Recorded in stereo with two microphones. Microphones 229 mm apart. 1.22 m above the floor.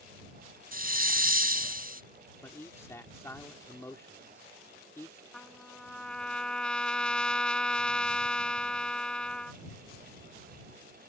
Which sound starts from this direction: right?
A hiss, at 0.7 s.